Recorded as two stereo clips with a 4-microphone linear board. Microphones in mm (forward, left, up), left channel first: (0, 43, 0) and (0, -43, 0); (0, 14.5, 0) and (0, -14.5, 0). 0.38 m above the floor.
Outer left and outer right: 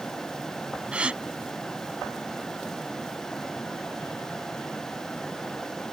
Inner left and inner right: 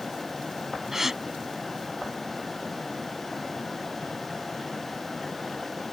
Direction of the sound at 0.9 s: 15° right (ahead or behind).